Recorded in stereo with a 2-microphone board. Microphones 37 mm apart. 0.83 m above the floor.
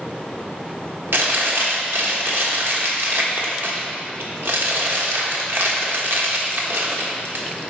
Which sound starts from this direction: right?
Chewing, at 1.1 s.